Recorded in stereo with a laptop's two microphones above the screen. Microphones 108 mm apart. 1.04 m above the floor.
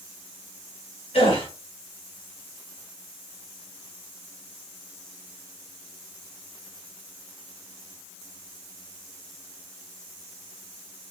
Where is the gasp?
75° left (ahead or behind), 2.5 m.